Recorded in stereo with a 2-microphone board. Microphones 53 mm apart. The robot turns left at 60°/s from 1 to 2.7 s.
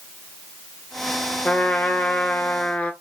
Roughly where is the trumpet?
Behind left.